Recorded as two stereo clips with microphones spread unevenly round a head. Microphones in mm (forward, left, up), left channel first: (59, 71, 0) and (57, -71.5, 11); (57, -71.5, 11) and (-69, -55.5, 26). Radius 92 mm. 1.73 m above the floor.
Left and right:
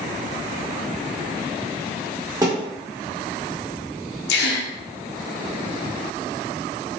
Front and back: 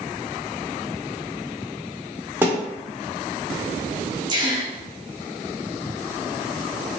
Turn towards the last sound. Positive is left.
turn(degrees=105)